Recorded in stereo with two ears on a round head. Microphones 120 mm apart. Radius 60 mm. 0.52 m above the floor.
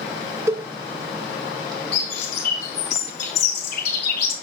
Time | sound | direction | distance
0.5 | a cowbell | 20° right (ahead or behind) | 0.5 m
1.9 | a bird | 70° left (ahead or behind) | 2 m